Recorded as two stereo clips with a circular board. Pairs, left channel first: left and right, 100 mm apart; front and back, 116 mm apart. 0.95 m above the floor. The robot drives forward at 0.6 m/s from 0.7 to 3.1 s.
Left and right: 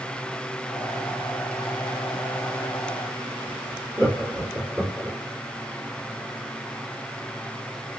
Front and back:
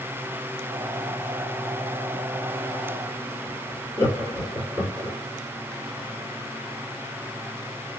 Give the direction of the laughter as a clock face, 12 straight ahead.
4 o'clock.